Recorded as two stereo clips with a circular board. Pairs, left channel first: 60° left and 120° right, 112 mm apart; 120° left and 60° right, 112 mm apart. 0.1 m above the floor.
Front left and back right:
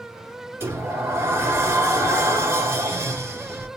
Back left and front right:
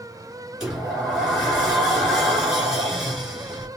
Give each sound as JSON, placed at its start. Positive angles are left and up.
{"t": 0.6, "sound": "a sliding door", "azimuth_deg": -140, "distance_m": 1.5}